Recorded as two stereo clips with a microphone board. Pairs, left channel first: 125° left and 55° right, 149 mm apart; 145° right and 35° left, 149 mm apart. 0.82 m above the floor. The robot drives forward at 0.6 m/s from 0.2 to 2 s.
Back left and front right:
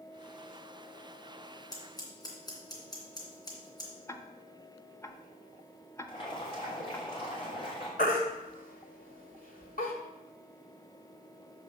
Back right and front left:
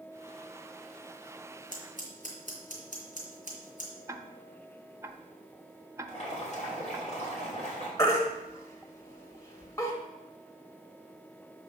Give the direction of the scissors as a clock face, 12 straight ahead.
6 o'clock.